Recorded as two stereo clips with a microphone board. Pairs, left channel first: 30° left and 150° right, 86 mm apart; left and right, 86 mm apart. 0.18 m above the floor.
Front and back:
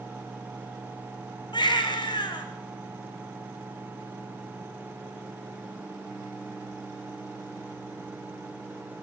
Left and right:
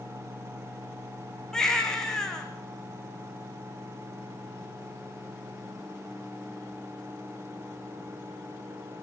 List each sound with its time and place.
1.5 s a baby crying: 10° left, 4 m